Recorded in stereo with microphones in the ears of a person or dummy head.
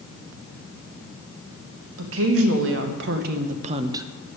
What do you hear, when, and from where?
2.0 s a woman speaking: 80° right, 1.8 m; by 4.1 s 15° right (ahead or behind), 0.6 m